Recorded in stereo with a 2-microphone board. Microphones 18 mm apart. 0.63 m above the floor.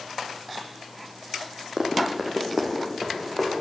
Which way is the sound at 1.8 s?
35° right (ahead or behind).